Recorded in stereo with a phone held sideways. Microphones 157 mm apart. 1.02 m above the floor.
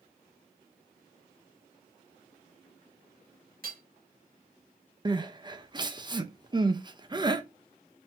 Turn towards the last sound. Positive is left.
turn(degrees=-30)  # may be behind; listen again after turning